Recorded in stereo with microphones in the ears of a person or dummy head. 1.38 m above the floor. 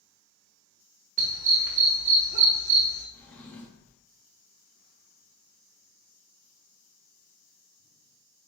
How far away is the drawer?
About 0.8 m.